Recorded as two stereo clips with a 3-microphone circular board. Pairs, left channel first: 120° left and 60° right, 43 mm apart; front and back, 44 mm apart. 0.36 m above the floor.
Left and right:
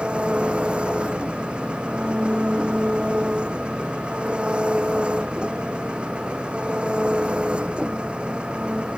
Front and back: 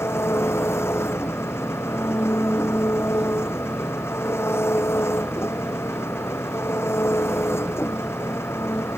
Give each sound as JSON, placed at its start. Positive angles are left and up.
{"t": 0.0, "sound": "an engine running", "azimuth_deg": 5}